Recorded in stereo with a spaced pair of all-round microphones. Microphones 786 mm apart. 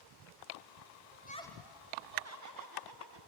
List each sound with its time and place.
1.1 s laughter: 15° left (ahead or behind), 1.0 m; by 3.2 s 30° right (ahead or behind), 2 m